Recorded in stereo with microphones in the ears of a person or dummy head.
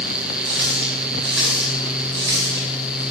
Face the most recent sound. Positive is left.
turn(degrees=-65)  # may be behind; listen again after turning